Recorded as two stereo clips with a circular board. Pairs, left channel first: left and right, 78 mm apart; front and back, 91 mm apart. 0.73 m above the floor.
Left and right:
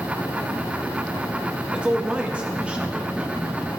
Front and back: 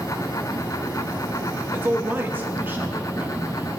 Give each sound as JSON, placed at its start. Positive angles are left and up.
{"t": 1.7, "sound": "a man speaking", "azimuth_deg": -145, "distance_m": 0.9}